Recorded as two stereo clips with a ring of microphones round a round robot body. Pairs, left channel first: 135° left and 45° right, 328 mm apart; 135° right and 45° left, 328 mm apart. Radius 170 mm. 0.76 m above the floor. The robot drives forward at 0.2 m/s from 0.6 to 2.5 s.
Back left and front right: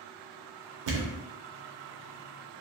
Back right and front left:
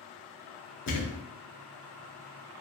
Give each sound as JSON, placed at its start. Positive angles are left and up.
{"t": 0.9, "sound": "a thud", "azimuth_deg": -80, "distance_m": 0.5}